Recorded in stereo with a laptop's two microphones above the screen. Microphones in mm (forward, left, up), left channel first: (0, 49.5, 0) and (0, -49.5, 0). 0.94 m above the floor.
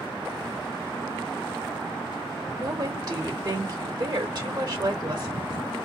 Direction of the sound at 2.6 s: 40° right (ahead or behind).